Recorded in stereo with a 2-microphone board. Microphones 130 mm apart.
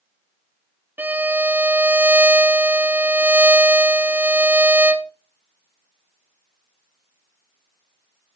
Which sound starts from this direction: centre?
A violin, at 1.0 s.